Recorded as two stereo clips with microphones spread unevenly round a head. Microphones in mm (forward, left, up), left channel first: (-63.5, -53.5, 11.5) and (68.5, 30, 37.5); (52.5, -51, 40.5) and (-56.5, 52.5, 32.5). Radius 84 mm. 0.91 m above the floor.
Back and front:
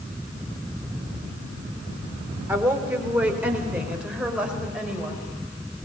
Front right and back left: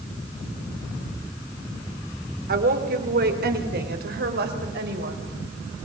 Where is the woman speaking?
110° left, 3.5 m; by 5.3 s 115° left, 5.5 m.